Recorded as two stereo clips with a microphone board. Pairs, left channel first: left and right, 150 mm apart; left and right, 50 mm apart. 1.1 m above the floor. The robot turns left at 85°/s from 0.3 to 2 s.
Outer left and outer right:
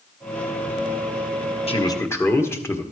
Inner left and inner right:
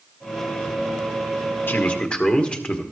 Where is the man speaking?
40° left (ahead or behind), 1.3 m; by 2.8 s 20° left (ahead or behind), 1.3 m.